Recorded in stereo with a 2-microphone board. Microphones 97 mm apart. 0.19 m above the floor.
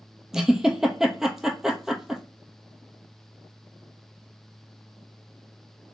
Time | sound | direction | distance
0.3 | a giggle | 5° right (ahead or behind) | 0.9 m